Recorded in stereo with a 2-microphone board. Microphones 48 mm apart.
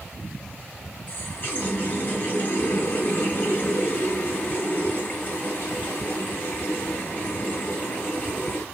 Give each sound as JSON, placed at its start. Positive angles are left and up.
{"t": 1.1, "sound": "a running tap", "side_deg": 40, "distance_m": 1.0}